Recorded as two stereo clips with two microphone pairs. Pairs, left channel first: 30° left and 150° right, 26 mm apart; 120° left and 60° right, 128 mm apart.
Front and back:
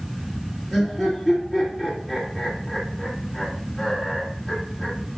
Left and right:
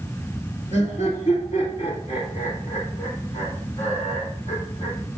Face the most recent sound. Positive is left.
turn(degrees=130)